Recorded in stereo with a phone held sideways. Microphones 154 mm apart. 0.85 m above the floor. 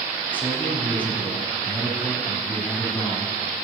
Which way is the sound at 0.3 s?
10° left (ahead or behind).